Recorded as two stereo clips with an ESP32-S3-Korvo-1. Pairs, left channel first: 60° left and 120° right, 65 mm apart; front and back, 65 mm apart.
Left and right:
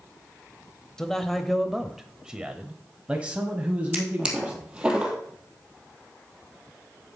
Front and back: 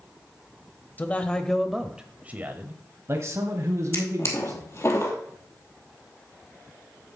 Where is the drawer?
45° right, 2 m.